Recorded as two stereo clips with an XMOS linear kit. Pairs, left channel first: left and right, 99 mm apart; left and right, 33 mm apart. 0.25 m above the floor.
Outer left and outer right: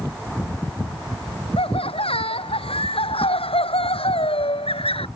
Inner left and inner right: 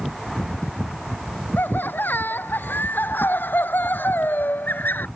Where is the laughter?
70° left (ahead or behind).